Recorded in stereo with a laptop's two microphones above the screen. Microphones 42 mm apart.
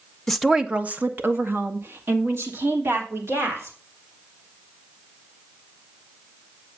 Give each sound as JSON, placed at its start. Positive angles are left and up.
{"t": 0.3, "sound": "a woman speaking", "side_deg": 10, "distance_m": 0.8}